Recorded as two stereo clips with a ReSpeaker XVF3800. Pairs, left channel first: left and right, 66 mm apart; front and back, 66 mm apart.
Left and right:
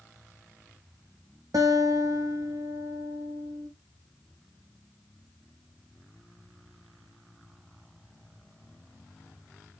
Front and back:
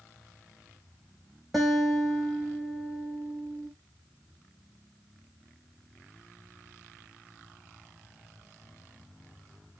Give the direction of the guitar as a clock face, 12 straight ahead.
3 o'clock.